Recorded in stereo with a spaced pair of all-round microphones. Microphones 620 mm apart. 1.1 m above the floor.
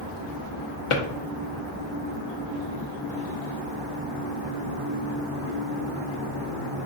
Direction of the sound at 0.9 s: 55° left (ahead or behind).